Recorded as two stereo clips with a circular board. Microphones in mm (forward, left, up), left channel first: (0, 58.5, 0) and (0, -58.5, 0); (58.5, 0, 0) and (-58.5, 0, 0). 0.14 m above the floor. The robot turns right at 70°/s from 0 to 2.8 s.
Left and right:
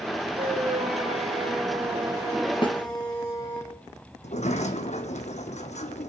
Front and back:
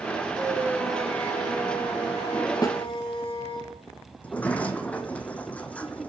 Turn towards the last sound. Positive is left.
turn(degrees=75)